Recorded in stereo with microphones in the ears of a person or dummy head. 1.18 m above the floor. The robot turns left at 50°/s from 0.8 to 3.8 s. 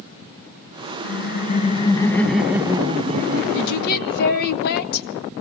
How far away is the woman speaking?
About 1.5 m.